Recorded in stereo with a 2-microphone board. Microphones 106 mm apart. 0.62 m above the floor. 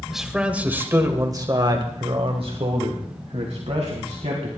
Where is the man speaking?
Centre (ahead or behind), 2.5 m; by 4.5 s 80° right, 4.5 m.